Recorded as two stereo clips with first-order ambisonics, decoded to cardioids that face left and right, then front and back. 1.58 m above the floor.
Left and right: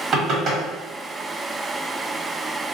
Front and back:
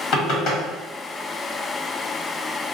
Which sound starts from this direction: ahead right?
Knocking, at 0.1 s.